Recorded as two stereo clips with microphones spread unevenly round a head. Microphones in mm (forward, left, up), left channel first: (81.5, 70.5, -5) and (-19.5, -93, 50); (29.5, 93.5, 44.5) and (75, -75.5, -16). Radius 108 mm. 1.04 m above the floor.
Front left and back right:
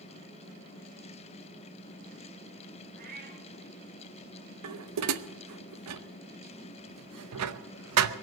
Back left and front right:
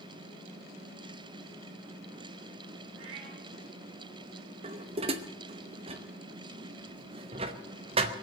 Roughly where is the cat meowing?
Right.